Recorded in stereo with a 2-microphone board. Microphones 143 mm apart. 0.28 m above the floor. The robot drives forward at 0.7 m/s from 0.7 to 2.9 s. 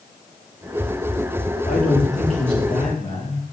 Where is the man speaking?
70° left (ahead or behind), 5.5 m; by 3.4 s 60° left (ahead or behind), 6 m.